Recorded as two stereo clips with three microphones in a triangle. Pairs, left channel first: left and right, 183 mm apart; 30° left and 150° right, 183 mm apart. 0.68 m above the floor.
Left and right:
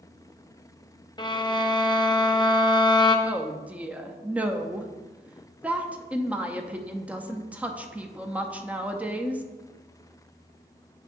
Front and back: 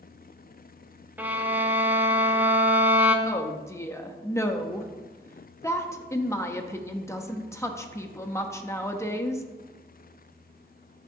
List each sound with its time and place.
1.2 s a violin: 135° left, 0.7 m
3.2 s a woman speaking: 20° right, 0.6 m